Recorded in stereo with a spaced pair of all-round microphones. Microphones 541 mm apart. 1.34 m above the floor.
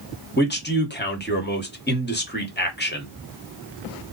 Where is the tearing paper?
I don't hear tearing paper.